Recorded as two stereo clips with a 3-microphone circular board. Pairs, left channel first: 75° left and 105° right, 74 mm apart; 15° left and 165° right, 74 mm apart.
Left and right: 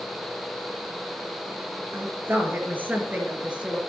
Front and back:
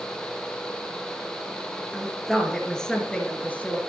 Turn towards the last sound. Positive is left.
turn(degrees=-35)